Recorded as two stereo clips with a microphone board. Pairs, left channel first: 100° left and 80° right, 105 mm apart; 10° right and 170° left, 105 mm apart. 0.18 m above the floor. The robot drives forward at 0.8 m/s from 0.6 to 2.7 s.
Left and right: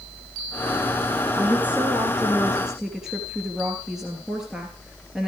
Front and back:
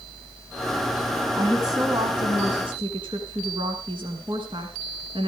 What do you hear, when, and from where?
1.4 s a woman speaking: 145° right, 1.4 m; by 5.3 s 165° right, 2 m